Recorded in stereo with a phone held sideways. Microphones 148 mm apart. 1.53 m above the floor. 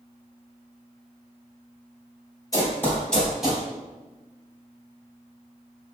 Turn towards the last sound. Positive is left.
turn(degrees=-10)  # may be behind; listen again after turning